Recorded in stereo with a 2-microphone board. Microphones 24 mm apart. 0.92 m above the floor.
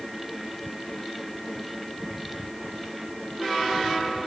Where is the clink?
I don't hear a clink.